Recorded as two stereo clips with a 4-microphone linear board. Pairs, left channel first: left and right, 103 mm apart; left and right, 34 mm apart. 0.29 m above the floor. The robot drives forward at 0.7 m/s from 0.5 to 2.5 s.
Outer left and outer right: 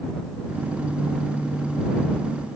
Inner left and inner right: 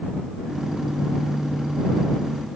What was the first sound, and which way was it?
Only background noise.